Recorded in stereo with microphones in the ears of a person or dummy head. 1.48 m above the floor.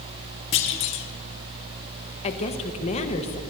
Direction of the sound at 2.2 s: 40° left (ahead or behind).